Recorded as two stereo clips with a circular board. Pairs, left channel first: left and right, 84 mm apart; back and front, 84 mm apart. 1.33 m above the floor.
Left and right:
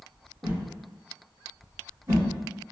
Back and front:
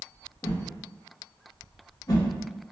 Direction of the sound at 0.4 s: 140° right.